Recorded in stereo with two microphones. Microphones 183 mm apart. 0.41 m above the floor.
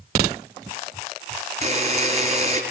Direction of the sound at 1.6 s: 40° right (ahead or behind).